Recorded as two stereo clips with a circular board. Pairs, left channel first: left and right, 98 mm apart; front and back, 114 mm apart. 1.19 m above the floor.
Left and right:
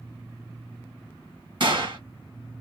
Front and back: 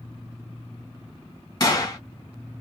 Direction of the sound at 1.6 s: 55° right.